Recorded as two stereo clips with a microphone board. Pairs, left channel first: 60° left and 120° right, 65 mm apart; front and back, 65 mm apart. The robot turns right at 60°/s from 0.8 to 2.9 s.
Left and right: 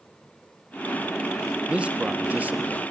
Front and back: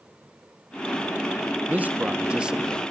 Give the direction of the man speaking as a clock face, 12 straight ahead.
6 o'clock.